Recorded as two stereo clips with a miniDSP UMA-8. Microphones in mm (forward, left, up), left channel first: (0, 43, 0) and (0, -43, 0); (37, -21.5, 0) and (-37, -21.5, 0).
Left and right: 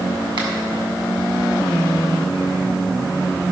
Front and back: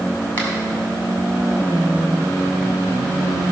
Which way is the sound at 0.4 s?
65° right.